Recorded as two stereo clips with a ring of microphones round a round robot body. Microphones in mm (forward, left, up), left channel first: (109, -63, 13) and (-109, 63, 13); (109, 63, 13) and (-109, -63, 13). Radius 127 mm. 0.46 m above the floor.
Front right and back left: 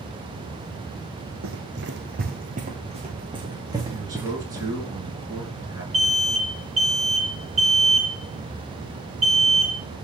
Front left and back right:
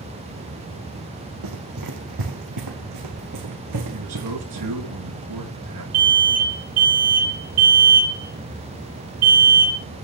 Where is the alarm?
120° right, 7.5 m.